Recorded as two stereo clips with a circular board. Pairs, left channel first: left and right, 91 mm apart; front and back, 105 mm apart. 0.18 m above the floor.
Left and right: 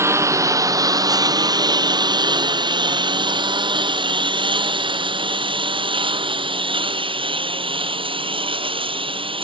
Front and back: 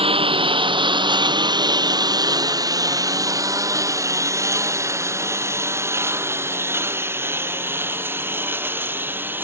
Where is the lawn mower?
150° right; by 9.4 s 110° right.